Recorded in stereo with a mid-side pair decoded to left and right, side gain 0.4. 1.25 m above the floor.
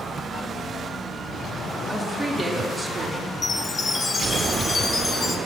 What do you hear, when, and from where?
1.9 s a woman speaking: 15° right, 3 m
3.4 s a chime: 35° left, 1.3 m